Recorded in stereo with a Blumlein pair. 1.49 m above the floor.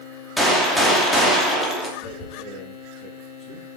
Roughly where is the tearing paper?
Ahead left.